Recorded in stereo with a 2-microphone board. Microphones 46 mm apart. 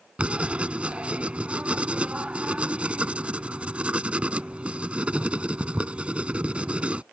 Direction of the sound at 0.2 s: 25° right (ahead or behind).